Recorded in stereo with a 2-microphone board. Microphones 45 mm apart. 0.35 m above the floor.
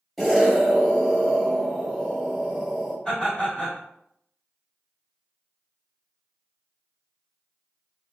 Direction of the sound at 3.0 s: 20° left (ahead or behind).